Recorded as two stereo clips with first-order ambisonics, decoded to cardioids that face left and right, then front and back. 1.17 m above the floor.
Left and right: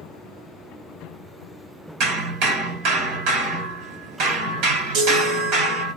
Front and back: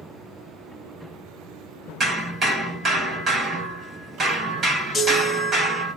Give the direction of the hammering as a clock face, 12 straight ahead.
4 o'clock.